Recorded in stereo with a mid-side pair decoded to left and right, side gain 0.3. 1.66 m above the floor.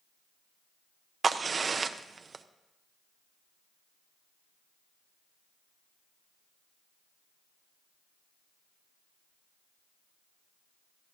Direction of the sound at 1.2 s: 55° right.